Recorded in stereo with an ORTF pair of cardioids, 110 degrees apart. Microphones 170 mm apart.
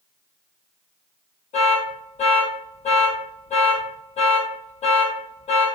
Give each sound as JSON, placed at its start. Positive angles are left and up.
{"t": 1.5, "sound": "an alarm", "azimuth_deg": 40, "distance_m": 1.1}